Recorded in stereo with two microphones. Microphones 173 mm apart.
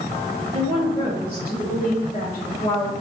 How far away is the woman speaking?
About 2 m.